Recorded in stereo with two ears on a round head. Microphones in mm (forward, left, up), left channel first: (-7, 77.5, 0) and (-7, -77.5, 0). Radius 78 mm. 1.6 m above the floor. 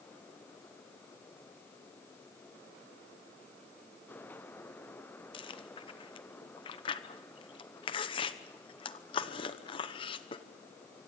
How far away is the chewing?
About 0.9 m.